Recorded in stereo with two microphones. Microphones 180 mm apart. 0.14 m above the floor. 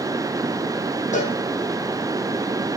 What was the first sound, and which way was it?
A cowbell, 40° left (ahead or behind).